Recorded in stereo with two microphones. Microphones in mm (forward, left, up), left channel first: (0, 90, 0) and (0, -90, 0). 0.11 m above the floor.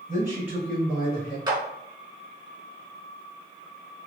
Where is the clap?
25° right (ahead or behind), 0.9 m.